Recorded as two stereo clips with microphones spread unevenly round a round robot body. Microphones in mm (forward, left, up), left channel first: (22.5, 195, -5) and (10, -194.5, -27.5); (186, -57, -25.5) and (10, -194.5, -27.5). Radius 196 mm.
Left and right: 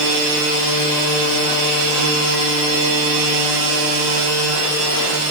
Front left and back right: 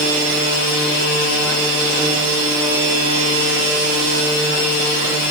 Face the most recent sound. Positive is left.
No sound to turn to.